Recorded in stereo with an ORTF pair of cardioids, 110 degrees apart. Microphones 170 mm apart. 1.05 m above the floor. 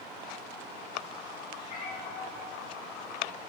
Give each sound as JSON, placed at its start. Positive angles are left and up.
{"t": 1.6, "sound": "a cat meowing", "azimuth_deg": 55, "distance_m": 5.5}